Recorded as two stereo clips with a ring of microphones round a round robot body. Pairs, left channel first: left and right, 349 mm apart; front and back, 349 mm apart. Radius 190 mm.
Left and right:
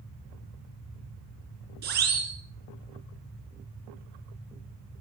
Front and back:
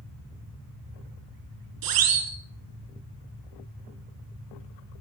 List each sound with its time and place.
1.8 s a siren: 155° right, 4 m